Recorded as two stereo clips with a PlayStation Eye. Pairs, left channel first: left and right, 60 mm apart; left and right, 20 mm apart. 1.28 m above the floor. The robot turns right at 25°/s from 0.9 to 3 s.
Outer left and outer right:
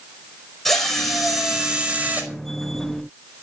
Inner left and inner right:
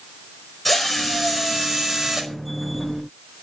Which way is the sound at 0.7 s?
175° left.